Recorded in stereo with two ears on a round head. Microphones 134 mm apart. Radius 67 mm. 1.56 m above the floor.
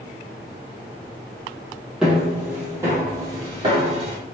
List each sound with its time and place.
2.0 s footsteps: 5° right (ahead or behind), 1.8 m; by 4.2 s 40° right (ahead or behind), 2 m